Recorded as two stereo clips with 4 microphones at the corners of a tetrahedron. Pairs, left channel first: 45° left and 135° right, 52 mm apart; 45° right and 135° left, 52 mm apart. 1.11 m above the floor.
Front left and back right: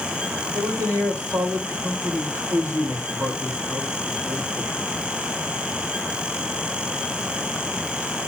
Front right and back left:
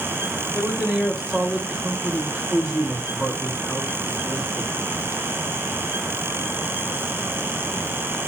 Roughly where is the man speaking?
Behind right.